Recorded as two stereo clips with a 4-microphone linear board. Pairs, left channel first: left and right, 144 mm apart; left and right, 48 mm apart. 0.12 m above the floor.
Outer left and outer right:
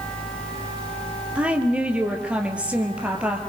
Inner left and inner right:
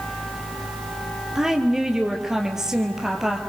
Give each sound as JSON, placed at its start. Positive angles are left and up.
{"t": 1.4, "sound": "a woman speaking", "side_deg": -10, "distance_m": 3.5}